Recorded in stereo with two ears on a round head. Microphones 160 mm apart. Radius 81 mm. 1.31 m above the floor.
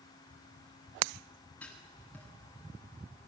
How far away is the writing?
About 7 m.